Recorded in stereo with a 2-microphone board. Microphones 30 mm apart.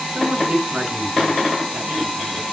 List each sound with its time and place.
0.1 s a man speaking: 50° right (ahead or behind), 7 m